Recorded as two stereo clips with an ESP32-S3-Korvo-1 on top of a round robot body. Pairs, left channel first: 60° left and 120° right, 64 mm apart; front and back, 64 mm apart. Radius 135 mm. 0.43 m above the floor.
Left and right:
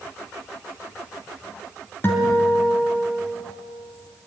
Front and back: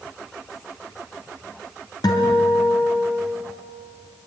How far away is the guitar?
About 3.5 m.